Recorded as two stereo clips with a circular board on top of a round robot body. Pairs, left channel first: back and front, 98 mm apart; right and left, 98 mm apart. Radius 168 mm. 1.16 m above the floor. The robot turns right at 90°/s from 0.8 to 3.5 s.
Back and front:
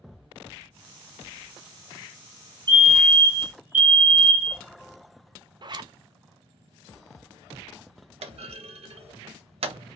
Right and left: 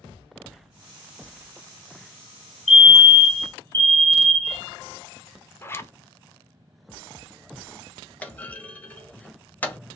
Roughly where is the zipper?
Ahead right.